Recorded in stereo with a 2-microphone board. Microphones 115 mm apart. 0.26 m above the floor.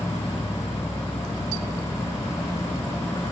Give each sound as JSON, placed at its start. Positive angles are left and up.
{"t": 0.0, "sound": "an insect", "side_deg": 25}